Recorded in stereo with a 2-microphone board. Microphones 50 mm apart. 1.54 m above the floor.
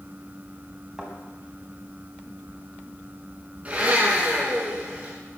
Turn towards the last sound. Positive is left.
turn(degrees=-25)  # may be behind; listen again after turning